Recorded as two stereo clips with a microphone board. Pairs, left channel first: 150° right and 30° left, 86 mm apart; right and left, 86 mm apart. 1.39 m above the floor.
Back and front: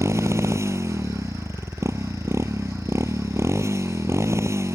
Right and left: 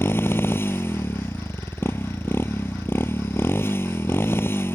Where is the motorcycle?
25° right.